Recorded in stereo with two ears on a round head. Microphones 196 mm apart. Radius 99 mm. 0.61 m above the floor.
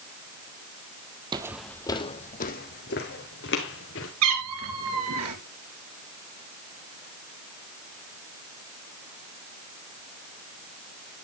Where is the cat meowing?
80° right, 2.5 m.